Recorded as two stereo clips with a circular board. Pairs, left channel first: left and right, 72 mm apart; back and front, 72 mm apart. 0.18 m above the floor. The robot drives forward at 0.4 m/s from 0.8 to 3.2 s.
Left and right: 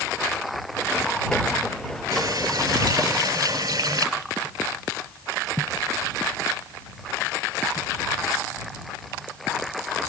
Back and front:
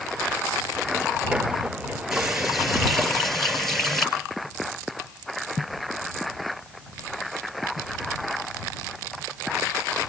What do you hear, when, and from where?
2.1 s a running tap: 85° right, 2.5 m; by 4.1 s 95° right, 2.5 m